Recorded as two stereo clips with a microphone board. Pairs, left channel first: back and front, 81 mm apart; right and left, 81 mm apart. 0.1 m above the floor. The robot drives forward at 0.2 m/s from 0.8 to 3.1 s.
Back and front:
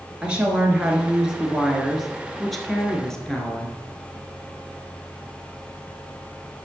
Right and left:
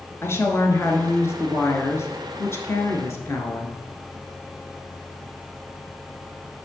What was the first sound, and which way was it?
A woman speaking, 70° right.